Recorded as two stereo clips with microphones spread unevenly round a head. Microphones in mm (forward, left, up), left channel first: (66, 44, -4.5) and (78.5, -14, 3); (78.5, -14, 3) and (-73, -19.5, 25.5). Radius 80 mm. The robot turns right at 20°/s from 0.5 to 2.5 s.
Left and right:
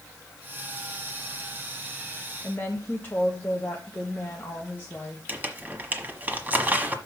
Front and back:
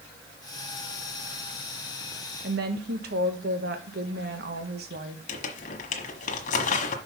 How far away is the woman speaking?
About 1.4 m.